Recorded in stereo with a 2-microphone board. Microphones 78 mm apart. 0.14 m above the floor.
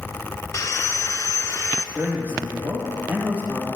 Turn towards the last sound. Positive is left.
turn(degrees=-25)  # may be behind; listen again after turning